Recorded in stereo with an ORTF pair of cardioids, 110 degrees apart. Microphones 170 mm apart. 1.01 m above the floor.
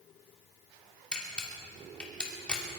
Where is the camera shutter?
5° left, 3 m.